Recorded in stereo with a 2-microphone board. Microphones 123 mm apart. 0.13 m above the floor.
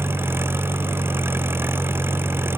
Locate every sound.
0.0 s an engine running: 20° right (ahead or behind)